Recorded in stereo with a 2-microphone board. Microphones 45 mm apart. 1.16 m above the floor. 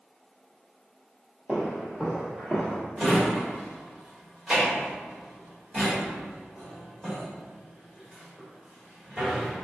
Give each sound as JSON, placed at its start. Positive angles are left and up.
{"t": 1.5, "sound": "footsteps", "side_deg": -20, "distance_m": 1.6}
{"t": 3.0, "sound": "a drawer", "side_deg": 0, "distance_m": 1.2}